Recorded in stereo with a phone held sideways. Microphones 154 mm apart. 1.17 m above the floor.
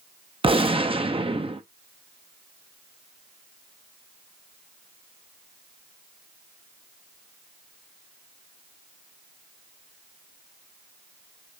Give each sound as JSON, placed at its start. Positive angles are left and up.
{"t": 0.4, "sound": "a gunshot", "side_deg": -35, "distance_m": 0.6}